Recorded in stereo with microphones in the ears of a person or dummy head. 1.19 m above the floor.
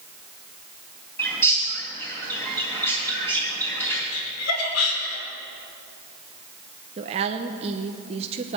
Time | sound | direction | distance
1.2 | a bird | 20° left (ahead or behind) | 3 m
4.1 | laughter | 85° left | 4.5 m
7.0 | a woman speaking | 40° right (ahead or behind) | 0.8 m